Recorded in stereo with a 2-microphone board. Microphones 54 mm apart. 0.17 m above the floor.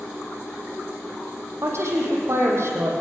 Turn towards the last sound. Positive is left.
turn(degrees=-60)  # may be behind; listen again after turning